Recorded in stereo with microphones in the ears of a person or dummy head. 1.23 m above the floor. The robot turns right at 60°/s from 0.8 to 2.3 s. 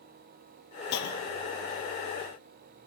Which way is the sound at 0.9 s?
60° left.